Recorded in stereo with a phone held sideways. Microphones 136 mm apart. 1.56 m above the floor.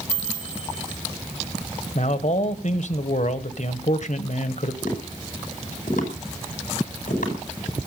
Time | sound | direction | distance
0.1 | a chime | 50° left (ahead or behind) | 8 m
1.9 | a man speaking | 60° left (ahead or behind) | 1.2 m
4.8 | tapping | 75° left (ahead or behind) | 5.5 m